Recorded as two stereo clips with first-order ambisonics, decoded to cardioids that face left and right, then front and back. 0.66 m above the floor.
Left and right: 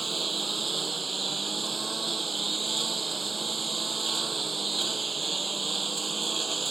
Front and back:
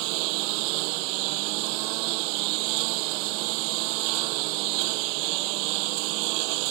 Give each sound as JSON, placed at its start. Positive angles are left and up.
{"t": 0.0, "sound": "a lawn mower", "azimuth_deg": -165}